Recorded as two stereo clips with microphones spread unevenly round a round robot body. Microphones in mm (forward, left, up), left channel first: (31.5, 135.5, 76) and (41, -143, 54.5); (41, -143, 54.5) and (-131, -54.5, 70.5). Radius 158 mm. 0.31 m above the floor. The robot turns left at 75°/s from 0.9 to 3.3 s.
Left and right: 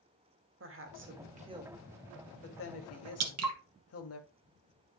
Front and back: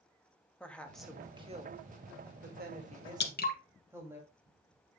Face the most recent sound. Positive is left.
turn(degrees=-65)